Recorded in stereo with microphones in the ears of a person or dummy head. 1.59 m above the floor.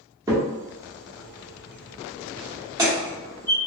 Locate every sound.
0.3 s a crack: 15° right (ahead or behind), 1.0 m